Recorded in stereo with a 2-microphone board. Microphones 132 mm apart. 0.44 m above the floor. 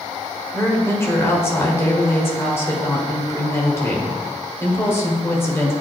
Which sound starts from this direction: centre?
A woman speaking, at 0.5 s.